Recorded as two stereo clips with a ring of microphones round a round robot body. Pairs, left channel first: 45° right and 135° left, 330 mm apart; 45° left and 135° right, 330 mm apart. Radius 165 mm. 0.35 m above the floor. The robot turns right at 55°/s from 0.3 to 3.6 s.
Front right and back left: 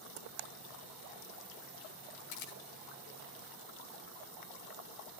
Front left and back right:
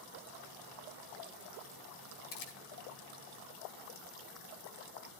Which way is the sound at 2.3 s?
15° right.